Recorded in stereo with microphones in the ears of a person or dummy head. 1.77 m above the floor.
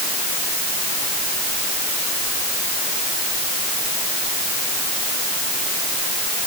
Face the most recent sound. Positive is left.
No sound to turn to.